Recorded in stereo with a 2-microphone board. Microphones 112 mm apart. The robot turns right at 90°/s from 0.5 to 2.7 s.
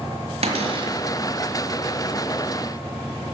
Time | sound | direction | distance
0.4 | a cupboard door | 80° right | 1.9 m